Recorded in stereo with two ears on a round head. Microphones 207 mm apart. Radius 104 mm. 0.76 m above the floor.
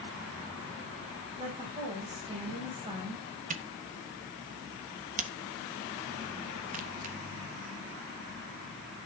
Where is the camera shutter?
35° right (ahead or behind), 1.1 m.